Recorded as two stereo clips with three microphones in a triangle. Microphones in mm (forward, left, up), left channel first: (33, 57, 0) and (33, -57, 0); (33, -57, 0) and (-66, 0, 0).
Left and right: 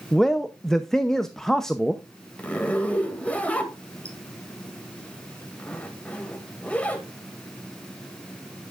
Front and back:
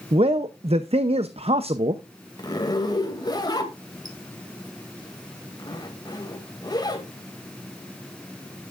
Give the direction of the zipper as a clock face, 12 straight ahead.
12 o'clock.